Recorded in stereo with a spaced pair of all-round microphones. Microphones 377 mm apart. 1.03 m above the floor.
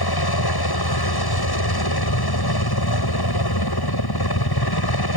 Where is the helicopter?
75° left (ahead or behind).